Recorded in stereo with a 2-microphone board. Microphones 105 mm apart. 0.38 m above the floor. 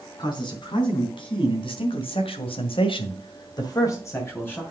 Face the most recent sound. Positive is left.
turn(degrees=15)  # may be behind; listen again after turning